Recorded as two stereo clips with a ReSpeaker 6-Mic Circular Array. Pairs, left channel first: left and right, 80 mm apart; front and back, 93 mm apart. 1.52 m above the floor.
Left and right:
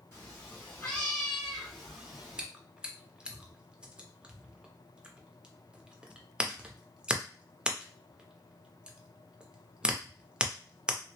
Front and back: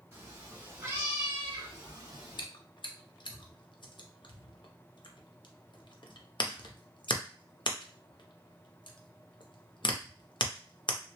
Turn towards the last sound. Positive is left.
turn(degrees=-15)